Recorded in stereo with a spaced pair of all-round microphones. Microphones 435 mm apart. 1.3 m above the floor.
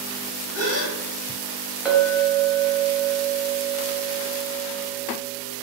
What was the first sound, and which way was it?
A gasp, 35° left (ahead or behind).